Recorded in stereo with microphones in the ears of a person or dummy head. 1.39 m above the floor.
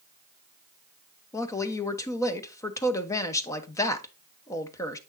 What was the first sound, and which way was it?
A woman speaking, 15° left (ahead or behind).